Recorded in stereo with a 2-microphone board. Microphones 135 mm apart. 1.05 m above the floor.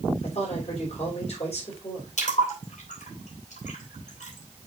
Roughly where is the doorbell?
I don't hear a doorbell.